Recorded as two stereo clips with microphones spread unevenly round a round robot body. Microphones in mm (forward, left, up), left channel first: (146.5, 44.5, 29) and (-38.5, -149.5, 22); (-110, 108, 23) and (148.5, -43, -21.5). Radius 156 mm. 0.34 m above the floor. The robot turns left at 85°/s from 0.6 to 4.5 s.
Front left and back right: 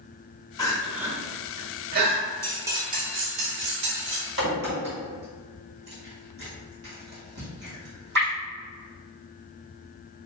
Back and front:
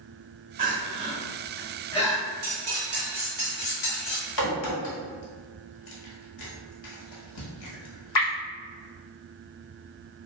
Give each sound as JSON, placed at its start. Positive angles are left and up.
{"t": 0.6, "sound": "crying", "azimuth_deg": -25, "distance_m": 0.7}
{"t": 2.4, "sound": "cutlery clinking", "azimuth_deg": -35, "distance_m": 0.8}
{"t": 4.4, "sound": "a crack", "azimuth_deg": 175, "distance_m": 1.2}